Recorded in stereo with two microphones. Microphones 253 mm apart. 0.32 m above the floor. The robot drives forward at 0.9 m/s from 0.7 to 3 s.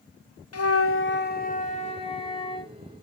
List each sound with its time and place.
0.5 s a flute: 70° left (ahead or behind), 0.7 m; by 2.7 s 15° left (ahead or behind), 2 m